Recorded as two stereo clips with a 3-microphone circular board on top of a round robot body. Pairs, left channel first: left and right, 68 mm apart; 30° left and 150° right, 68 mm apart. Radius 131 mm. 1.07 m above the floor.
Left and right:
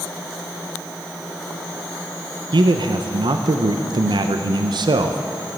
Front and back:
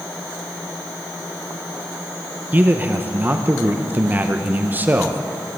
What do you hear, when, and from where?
2.5 s a man speaking: 85° right, 0.6 m